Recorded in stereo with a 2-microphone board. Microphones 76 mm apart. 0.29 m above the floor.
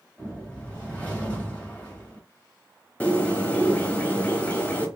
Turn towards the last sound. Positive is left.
turn(degrees=20)  # may be behind; listen again after turning